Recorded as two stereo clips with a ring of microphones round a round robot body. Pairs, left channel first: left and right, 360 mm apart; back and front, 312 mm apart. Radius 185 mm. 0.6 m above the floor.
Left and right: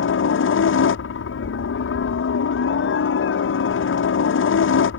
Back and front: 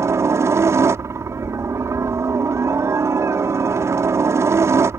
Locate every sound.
0.0 s a helicopter: 75° left